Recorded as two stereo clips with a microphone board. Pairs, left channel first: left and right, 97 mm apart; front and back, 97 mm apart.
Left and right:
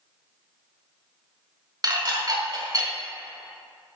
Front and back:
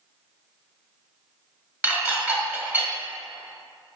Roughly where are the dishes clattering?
Behind right.